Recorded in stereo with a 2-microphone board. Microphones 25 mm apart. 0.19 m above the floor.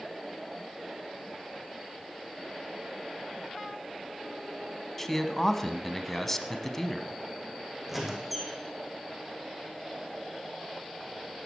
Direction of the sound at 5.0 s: 10° left (ahead or behind).